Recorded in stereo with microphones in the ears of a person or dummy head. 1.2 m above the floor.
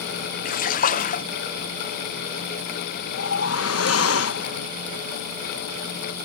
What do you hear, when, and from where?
0.5 s a splash: 45° left (ahead or behind)
3.1 s a whoosh: 80° left